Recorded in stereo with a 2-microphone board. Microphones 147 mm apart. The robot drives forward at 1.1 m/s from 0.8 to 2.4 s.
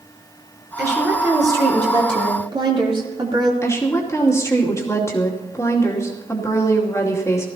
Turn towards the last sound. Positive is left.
turn(degrees=20)  # may be behind; listen again after turning